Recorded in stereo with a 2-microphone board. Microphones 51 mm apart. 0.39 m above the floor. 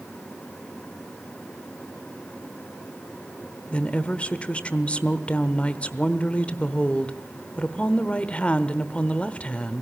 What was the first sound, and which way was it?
A woman speaking, 25° left (ahead or behind).